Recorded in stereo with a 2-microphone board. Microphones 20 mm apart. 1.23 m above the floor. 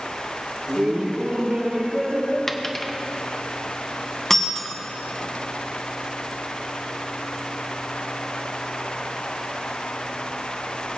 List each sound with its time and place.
0.7 s laughter: 60° right (ahead or behind), 3 m; by 2.4 s 65° right (ahead or behind), 5 m
2.5 s a dropped coin: 15° left (ahead or behind), 0.7 m
4.3 s breaking glass: 20° left (ahead or behind), 1.1 m